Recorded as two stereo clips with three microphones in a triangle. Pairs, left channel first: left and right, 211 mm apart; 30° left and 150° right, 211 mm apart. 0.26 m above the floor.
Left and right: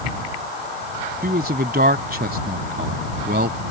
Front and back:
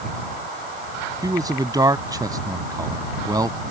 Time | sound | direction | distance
1.2 | a man speaking | 85° right | ?